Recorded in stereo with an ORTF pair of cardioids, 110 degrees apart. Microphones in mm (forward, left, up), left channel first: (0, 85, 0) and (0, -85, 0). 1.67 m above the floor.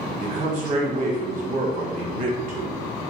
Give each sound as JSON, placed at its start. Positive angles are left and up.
{"t": 0.2, "sound": "a man speaking", "azimuth_deg": -55, "distance_m": 1.3}